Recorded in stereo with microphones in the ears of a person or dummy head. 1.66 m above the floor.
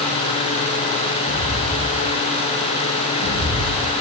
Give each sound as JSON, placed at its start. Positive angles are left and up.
{"t": 1.3, "sound": "footsteps", "side_deg": -40, "distance_m": 5.0}